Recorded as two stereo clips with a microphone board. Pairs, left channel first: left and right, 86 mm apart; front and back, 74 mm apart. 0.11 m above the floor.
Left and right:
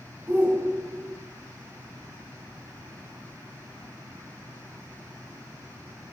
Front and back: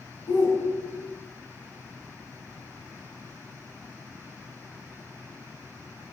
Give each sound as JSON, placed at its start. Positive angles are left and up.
{"t": 0.3, "sound": "a shout", "azimuth_deg": -15, "distance_m": 9.5}